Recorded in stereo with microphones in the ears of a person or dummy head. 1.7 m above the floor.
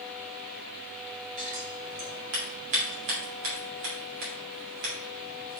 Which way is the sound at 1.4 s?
70° right (ahead or behind).